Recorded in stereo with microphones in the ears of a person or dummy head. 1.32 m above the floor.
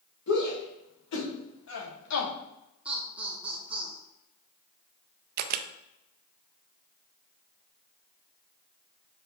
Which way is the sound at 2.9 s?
5° right (ahead or behind).